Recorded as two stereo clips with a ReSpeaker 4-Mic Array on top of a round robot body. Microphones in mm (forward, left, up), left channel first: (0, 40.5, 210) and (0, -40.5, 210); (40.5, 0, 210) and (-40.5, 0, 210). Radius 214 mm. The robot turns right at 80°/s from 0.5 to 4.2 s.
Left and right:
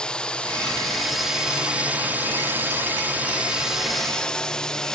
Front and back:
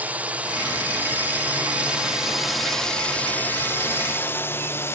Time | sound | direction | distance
0.0 | a drone | 150° left | ?